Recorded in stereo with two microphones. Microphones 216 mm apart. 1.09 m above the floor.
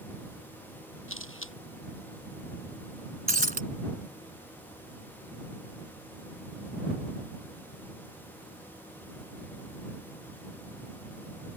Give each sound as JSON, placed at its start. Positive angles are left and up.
{"t": 1.1, "sound": "a camera shutter", "side_deg": 70}
{"t": 3.3, "sound": "breaking glass", "side_deg": -40}